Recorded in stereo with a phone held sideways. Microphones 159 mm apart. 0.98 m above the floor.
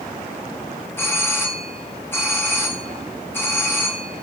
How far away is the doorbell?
About 2.5 m.